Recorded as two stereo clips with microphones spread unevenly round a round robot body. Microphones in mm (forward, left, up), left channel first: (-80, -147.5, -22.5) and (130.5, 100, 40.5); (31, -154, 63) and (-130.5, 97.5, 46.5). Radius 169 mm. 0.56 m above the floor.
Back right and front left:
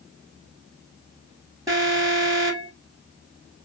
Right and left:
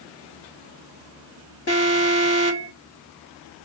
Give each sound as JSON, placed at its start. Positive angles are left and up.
{"t": 1.7, "sound": "an alarm", "azimuth_deg": -35, "distance_m": 1.8}